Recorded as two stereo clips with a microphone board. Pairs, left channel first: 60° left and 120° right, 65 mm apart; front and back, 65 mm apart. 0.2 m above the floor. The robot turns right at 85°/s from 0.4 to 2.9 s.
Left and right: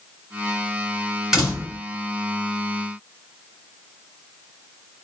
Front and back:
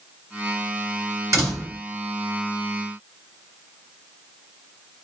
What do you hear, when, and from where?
1.3 s a door slam: 155° left, 2.0 m; by 1.8 s 165° right, 2.0 m